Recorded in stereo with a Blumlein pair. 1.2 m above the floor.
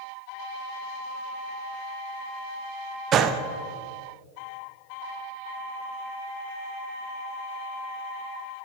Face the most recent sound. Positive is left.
turn(degrees=-30)